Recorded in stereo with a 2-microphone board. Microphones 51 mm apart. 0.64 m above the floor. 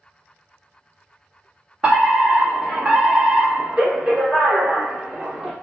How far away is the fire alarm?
About 1.5 m.